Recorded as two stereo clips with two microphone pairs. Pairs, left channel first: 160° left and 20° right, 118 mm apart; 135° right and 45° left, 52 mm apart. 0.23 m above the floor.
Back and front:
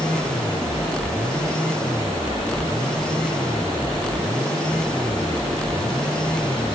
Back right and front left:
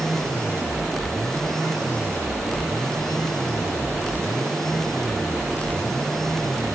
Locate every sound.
Only background noise.